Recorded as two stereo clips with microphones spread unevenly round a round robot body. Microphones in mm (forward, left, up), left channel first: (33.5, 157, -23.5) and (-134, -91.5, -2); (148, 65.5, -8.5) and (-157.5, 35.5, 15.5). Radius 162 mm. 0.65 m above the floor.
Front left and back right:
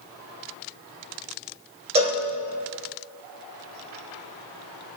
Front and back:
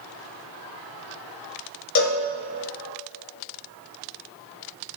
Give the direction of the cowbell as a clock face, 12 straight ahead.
2 o'clock.